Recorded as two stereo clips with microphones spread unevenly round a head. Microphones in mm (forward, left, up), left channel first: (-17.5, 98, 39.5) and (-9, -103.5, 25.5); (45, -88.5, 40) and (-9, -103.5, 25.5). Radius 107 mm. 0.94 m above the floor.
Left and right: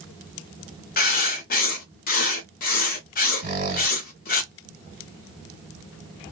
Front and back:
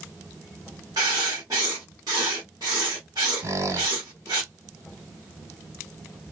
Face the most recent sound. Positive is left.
turn(degrees=-135)